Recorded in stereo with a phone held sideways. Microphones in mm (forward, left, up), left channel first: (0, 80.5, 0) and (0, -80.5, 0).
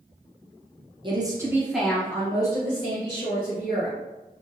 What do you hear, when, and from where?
1.0 s a woman speaking: 30° right (ahead or behind), 0.9 m; by 4.0 s 50° left (ahead or behind), 1.6 m